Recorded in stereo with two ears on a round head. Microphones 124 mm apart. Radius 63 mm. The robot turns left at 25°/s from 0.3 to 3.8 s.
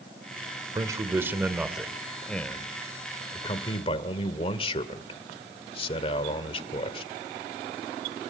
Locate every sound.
0.8 s a man speaking: 150° right, 1.5 m; by 7.1 s 135° left, 1.5 m